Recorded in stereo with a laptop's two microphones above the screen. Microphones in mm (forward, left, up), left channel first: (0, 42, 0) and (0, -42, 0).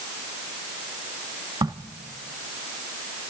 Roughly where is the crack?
Right.